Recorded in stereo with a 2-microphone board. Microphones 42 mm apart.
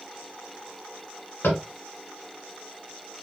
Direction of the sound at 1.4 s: 60° left (ahead or behind).